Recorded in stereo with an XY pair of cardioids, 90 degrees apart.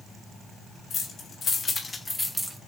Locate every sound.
0.9 s keys jangling: 60° left, 2.5 m; by 2.6 s 15° right, 1.1 m